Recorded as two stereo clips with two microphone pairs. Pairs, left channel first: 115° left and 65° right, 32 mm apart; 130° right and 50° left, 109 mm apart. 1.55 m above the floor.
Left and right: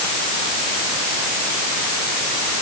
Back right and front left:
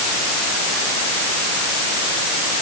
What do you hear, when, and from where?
Only background noise.